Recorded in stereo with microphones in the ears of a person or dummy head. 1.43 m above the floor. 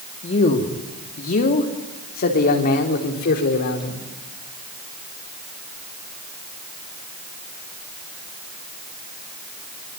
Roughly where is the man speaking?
Left.